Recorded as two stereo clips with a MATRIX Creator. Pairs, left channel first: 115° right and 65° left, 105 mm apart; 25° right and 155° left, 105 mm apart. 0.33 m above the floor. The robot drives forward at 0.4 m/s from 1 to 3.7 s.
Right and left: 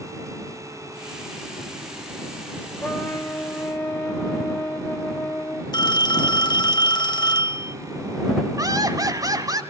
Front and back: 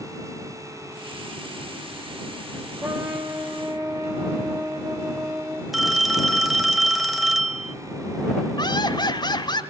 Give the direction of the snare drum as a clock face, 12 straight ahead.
No snare drum in this recording.